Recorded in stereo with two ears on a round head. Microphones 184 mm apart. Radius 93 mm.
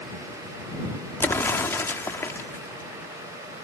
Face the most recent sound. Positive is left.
turn(degrees=10)  # may be behind; listen again after turning